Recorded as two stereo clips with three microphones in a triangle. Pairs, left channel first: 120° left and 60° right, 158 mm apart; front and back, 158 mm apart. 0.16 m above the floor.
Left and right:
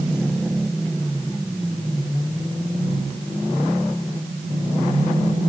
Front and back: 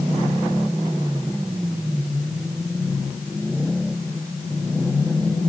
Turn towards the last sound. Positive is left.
No sound to turn to.